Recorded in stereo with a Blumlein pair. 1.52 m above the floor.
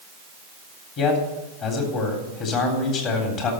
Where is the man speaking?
35° left, 3.5 m.